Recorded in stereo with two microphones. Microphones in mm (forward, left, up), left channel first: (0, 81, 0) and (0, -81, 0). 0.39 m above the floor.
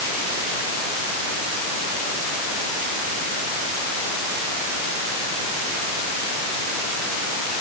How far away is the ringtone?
I don't hear a ringtone.